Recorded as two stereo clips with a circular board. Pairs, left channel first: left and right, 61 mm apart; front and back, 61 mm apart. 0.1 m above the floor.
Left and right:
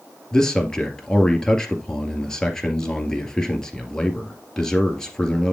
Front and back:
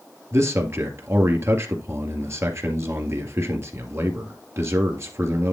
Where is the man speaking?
165° left, 2.0 m.